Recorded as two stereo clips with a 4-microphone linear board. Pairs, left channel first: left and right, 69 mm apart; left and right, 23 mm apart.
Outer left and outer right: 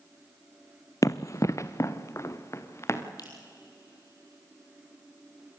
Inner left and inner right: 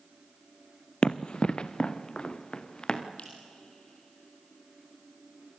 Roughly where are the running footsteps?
Left.